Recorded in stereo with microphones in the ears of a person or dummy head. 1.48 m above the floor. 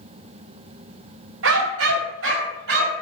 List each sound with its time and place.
1.4 s a dog barking: 70° right (ahead or behind), 3 m; by 3.0 s 65° right (ahead or behind), 4 m